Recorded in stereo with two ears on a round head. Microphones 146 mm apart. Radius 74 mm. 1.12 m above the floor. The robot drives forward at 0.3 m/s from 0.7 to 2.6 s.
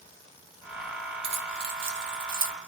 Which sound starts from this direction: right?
Keys jangling, at 1.2 s.